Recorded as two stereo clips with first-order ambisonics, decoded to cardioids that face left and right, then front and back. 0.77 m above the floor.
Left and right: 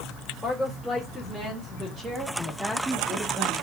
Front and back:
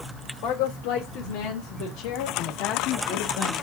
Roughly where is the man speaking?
Ahead.